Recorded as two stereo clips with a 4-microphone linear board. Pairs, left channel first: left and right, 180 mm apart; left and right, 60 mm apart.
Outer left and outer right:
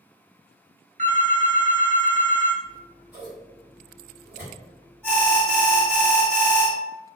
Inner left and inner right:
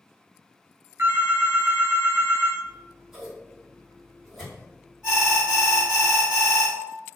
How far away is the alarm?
About 1.9 m.